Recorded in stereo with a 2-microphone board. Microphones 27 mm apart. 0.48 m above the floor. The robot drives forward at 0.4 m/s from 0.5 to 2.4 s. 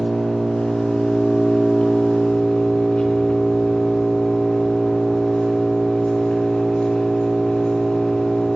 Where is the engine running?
45° left (ahead or behind), 4 m; by 8.6 s 55° left (ahead or behind), 3.5 m.